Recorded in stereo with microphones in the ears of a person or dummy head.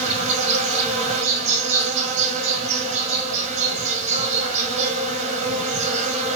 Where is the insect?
35° right (ahead or behind), 0.9 m.